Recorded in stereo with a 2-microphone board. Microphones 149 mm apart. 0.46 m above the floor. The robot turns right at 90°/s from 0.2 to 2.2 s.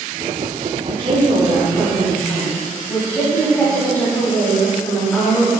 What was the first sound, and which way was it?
A woman speaking, 95° right.